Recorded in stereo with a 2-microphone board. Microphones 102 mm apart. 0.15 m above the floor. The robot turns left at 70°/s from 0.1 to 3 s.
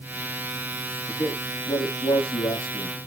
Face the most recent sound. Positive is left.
turn(degrees=35)